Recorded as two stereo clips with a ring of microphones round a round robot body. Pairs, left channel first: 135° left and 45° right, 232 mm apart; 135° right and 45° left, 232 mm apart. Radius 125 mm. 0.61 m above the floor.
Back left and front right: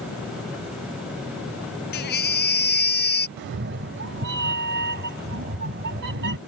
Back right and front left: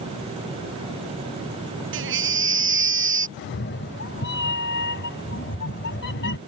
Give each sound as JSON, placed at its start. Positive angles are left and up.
{"t": 1.9, "sound": "a baby crying", "azimuth_deg": 85}
{"t": 3.4, "sound": "a cat meowing", "azimuth_deg": -90}